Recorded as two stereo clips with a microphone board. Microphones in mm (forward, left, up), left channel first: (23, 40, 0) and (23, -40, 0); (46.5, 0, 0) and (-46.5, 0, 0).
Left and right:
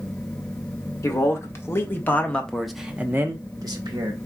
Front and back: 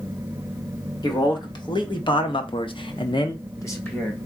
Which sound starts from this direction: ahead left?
A man speaking, at 1.0 s.